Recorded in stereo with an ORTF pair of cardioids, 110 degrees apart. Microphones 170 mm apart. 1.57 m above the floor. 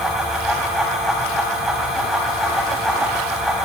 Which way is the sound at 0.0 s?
5° right.